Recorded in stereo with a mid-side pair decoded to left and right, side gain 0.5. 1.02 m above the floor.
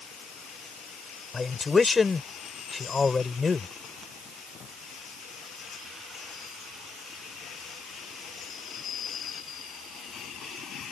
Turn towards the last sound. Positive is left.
turn(degrees=30)